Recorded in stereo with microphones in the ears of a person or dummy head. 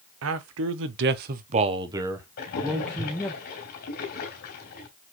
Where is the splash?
45° left (ahead or behind), 2.5 m.